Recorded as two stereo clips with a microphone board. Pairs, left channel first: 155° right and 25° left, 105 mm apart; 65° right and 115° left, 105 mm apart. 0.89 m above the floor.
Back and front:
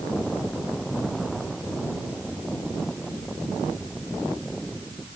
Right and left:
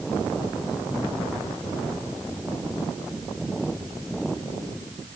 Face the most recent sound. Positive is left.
No sound to turn to.